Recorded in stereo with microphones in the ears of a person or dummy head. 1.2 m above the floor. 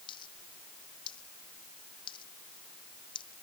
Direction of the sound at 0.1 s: 25° left (ahead or behind).